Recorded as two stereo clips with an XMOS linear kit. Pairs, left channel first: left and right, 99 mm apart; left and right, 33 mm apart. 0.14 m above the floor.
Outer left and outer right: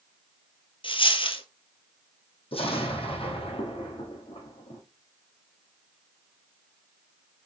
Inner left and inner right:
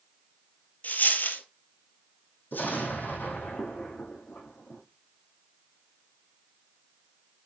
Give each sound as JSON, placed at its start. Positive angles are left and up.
{"t": 0.8, "sound": "a dropped coin", "side_deg": 60, "distance_m": 1.0}
{"t": 2.5, "sound": "an explosion", "side_deg": 70, "distance_m": 3.0}